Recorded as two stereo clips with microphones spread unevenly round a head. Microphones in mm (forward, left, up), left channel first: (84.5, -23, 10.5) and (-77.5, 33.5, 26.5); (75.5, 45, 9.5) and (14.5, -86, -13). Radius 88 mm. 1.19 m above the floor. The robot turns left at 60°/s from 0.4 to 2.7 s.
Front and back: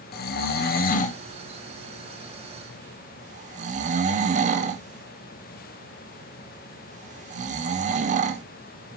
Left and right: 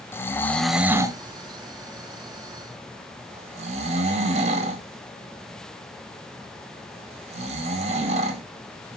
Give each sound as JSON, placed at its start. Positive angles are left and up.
{"t": 0.1, "sound": "snoring", "azimuth_deg": -15, "distance_m": 0.5}